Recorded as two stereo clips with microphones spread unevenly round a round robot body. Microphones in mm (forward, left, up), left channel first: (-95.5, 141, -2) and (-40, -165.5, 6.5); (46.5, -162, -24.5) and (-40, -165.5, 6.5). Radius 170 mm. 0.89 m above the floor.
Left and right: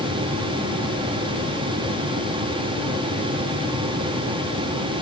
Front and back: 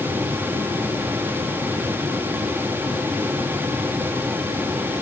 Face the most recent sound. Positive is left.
No sound to turn to.